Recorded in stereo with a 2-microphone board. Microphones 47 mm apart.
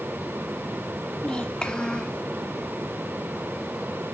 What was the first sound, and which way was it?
A child speaking, 20° left (ahead or behind).